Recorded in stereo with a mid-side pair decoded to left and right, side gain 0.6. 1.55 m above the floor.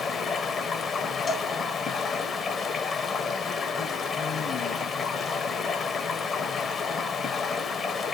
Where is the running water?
35° left, 0.9 m.